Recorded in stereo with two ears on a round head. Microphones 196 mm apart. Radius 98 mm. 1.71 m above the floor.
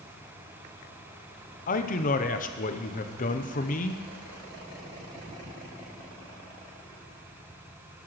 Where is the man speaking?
40° left (ahead or behind), 0.7 m.